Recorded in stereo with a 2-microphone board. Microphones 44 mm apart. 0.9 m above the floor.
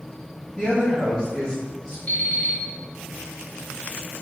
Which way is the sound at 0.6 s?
10° left (ahead or behind).